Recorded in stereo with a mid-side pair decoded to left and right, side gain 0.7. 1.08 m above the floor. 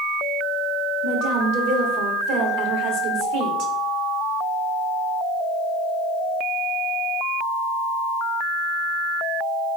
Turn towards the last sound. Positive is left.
turn(degrees=-60)